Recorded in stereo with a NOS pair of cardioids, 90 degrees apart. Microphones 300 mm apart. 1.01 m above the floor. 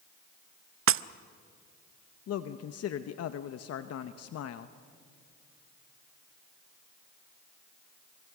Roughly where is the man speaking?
Ahead left.